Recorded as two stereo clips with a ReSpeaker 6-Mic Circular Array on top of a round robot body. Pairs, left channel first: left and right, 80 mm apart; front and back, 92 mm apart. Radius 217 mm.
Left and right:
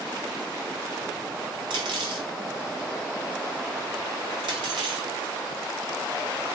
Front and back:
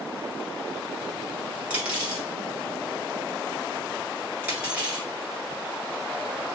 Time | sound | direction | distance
1.7 | cutlery clinking | 105° right | 1.3 m